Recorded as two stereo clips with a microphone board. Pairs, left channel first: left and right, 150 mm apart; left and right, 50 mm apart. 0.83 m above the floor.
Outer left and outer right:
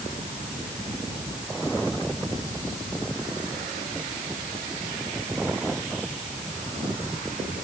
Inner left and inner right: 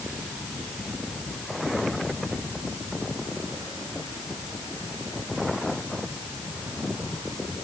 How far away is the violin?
No violin in this recording.